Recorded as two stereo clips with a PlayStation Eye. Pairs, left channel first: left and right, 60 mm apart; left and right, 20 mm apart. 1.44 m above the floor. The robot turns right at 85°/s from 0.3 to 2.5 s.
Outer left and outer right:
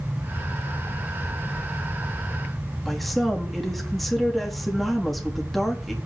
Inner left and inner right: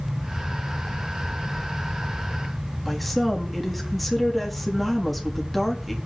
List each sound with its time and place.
2.9 s a woman speaking: centre (ahead or behind), 3.5 m